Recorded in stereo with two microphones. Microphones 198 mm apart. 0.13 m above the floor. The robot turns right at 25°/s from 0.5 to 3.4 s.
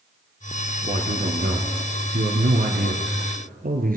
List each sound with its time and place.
0.9 s a man speaking: 130° right, 1.8 m; by 4.0 s 65° right, 1.8 m